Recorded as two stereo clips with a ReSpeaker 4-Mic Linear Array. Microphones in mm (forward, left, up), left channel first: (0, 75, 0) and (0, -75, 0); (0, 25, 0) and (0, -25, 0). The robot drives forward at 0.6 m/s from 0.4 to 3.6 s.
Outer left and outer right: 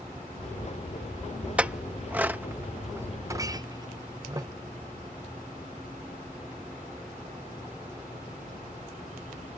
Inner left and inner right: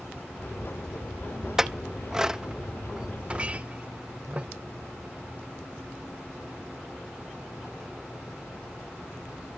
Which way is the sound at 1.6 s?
10° right (ahead or behind).